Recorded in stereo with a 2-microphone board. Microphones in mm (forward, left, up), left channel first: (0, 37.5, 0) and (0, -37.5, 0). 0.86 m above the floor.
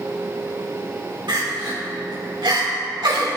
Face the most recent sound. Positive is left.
turn(degrees=-80)